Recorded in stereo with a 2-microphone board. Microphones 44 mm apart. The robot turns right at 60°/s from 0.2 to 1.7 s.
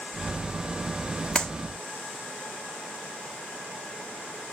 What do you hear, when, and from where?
1.4 s a clap: 20° left (ahead or behind), 1.1 m; by 1.5 s 15° left (ahead or behind), 1.1 m